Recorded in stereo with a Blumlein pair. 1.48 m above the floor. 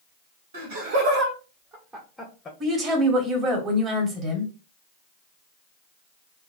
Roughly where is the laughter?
Ahead right.